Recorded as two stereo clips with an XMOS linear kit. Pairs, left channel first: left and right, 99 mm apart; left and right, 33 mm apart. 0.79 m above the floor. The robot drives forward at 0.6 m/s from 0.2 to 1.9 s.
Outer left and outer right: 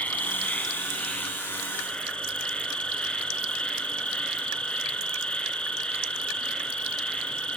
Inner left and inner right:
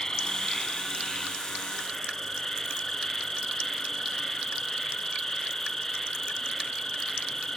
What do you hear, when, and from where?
0.0 s an insect: 15° left (ahead or behind), 1.7 m; by 7.6 s 10° left (ahead or behind), 2.5 m